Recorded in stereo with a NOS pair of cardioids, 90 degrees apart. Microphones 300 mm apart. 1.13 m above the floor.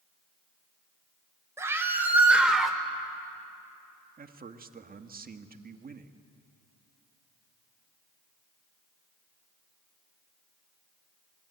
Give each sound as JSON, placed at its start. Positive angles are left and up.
{"t": 1.6, "sound": "a scream", "azimuth_deg": -10, "distance_m": 5.0}
{"t": 4.2, "sound": "a man speaking", "azimuth_deg": -30, "distance_m": 1.7}